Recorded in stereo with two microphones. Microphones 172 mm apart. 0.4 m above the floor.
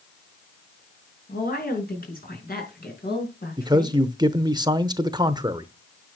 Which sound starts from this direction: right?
A man speaking, at 3.6 s.